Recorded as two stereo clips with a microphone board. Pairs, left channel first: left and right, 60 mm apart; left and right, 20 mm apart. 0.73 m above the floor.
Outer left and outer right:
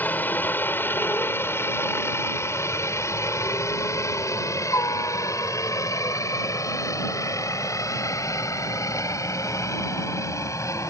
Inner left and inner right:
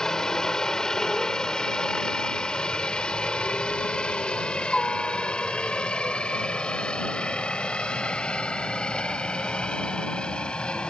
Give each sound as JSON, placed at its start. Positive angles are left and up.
{"t": 0.0, "sound": "a helicopter", "side_deg": 30}